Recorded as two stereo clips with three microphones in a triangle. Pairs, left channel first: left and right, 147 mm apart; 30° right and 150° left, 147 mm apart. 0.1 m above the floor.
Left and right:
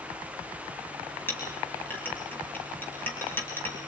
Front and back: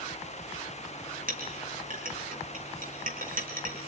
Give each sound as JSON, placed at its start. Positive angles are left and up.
{"t": 1.3, "sound": "a clink", "azimuth_deg": 165, "distance_m": 4.5}